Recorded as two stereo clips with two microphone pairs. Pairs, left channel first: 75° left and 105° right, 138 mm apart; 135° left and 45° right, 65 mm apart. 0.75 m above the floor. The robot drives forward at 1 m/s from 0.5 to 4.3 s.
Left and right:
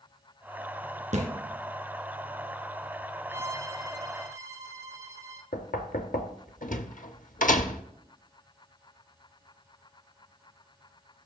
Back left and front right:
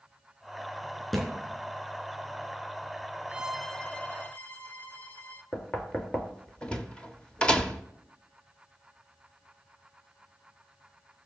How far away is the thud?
About 3 m.